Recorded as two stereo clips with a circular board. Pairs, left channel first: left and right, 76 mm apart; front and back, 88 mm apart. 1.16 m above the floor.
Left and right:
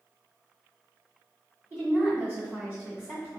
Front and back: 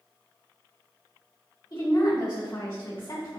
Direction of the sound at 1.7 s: 30° right.